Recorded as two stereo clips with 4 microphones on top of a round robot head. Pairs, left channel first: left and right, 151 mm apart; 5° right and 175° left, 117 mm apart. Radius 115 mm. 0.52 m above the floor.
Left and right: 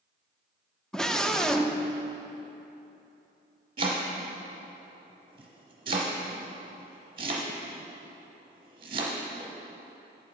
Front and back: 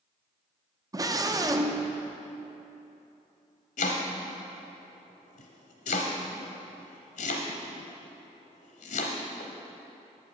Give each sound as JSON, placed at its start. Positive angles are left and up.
{"t": 0.9, "sound": "a scream", "azimuth_deg": 175, "distance_m": 0.7}
{"t": 3.8, "sound": "chopping", "azimuth_deg": -25, "distance_m": 0.8}